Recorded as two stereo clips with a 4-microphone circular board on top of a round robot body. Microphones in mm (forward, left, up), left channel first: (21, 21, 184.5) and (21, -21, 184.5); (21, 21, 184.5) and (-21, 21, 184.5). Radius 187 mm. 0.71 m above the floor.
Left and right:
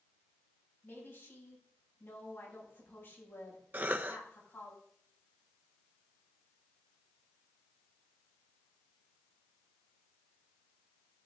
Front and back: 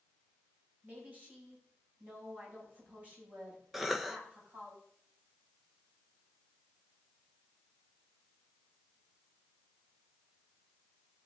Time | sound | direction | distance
0.8 | a woman speaking | 130° left | 7.5 m
3.7 | a cough | 95° right | 0.9 m